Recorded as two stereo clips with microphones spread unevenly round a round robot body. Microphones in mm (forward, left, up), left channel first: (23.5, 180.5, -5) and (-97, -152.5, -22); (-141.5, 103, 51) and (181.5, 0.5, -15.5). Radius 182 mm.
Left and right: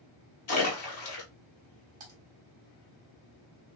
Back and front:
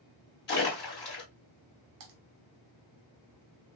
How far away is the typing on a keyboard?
About 0.9 m.